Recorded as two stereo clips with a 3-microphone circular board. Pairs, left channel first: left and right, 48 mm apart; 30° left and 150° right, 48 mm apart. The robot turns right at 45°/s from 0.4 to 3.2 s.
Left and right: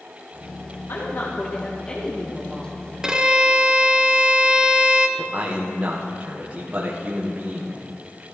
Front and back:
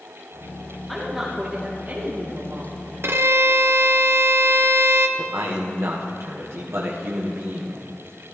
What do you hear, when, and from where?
0.9 s a woman speaking: 115° left, 1.3 m; by 2.7 s 160° right, 1.3 m
3.0 s a violin: 165° right, 0.6 m; by 5.1 s 155° right, 0.6 m
5.2 s a man speaking: 150° right, 1.2 m